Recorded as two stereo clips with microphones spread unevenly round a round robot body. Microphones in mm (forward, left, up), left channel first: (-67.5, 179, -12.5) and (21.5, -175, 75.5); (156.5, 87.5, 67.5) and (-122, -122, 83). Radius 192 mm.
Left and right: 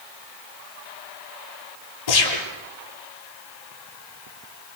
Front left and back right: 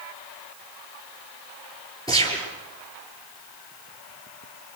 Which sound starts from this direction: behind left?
A gunshot, at 2.1 s.